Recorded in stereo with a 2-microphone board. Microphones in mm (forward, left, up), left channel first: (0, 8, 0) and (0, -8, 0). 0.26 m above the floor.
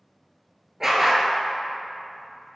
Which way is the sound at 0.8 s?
25° right (ahead or behind).